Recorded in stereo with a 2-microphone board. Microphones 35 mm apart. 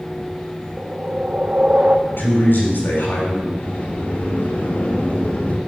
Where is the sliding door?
50° left (ahead or behind), 1.4 m.